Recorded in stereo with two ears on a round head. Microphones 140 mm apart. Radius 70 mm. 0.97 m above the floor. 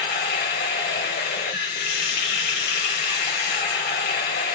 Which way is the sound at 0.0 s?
60° left (ahead or behind).